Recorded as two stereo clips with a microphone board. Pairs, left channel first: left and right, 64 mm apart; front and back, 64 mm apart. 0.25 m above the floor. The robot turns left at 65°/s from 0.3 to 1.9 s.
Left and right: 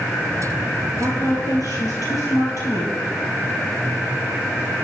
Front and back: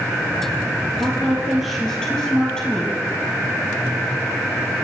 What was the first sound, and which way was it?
A woman speaking, 135° left.